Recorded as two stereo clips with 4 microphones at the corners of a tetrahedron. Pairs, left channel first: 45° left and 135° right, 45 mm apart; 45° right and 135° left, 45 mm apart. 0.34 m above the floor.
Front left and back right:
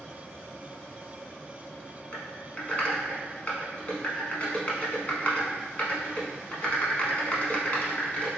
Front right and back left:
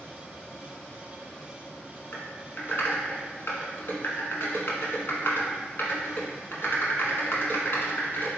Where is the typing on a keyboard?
10° right, 0.8 m.